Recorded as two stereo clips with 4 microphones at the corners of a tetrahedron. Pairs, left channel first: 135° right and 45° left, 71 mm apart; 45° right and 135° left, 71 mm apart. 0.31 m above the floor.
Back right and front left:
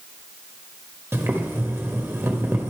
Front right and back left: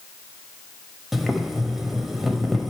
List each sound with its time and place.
1.1 s boiling: 50° left, 1.1 m